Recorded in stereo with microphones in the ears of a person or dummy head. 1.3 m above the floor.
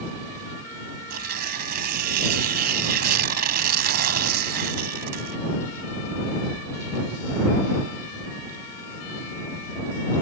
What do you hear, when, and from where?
1.1 s tearing paper: 50° right (ahead or behind)